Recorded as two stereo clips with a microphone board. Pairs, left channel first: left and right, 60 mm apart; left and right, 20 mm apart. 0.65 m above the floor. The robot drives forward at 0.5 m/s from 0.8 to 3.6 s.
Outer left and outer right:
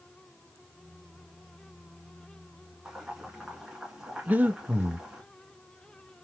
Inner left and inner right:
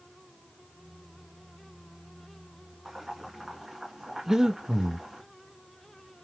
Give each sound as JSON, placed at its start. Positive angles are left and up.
{"t": 2.9, "sound": "boiling", "side_deg": -15, "distance_m": 2.0}
{"t": 4.3, "sound": "breathing", "side_deg": -30, "distance_m": 0.6}